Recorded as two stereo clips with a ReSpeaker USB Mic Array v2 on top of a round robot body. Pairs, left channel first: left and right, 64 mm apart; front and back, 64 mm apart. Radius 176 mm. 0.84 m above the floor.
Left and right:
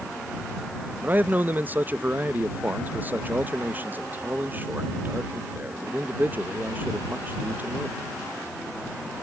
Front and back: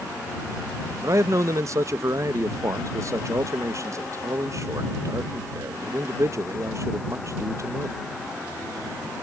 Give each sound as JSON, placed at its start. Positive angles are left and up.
{"t": 1.0, "sound": "a man speaking", "azimuth_deg": -150}